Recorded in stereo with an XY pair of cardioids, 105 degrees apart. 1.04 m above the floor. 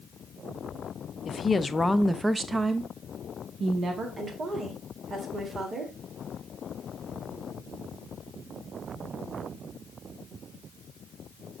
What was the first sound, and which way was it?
A woman speaking, 45° left.